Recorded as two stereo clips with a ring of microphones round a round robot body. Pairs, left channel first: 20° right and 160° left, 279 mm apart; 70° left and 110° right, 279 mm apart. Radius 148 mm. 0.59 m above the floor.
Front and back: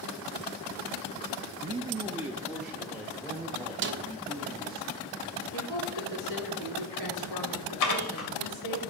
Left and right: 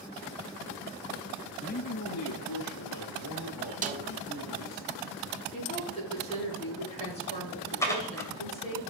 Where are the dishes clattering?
15° right, 2 m.